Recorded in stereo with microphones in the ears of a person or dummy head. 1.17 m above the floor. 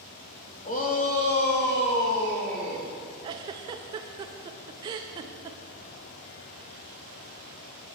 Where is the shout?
35° left (ahead or behind), 1.3 m; by 2.9 s 60° left (ahead or behind), 3 m.